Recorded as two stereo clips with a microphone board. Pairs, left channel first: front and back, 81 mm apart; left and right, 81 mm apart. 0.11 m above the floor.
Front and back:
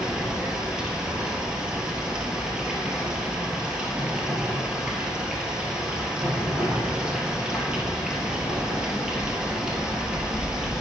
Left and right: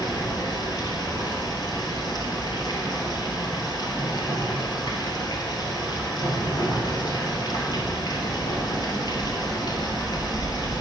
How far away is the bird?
No bird in this recording.